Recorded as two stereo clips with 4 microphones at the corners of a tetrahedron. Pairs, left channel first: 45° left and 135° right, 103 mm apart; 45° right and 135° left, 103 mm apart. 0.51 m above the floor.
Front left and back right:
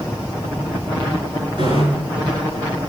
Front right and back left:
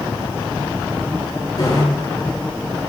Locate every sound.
1.6 s a bicycle bell: 100° right, 5.5 m